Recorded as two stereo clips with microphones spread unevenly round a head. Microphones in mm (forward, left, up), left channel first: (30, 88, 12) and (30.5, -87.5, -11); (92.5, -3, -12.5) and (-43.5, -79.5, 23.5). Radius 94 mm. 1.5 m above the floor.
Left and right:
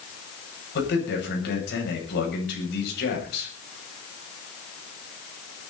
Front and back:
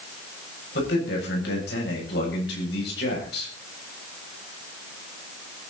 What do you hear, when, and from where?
0.8 s a man speaking: 65° left, 8 m